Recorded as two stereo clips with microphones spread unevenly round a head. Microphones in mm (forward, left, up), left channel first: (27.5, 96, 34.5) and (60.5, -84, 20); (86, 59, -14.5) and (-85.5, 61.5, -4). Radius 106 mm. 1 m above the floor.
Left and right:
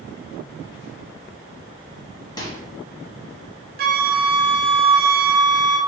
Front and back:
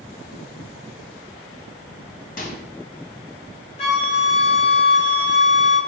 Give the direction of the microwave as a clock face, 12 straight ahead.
11 o'clock.